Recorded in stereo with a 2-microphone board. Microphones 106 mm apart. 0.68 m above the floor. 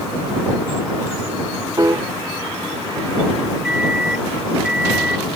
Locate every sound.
1.8 s a piano: 35° right (ahead or behind)
3.6 s a microwave: 5° right (ahead or behind)